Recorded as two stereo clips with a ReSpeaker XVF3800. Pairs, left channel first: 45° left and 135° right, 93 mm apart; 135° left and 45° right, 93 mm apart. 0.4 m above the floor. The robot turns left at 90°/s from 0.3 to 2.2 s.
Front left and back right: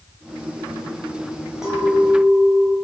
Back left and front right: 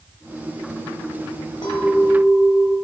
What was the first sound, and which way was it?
A clink, 145° left.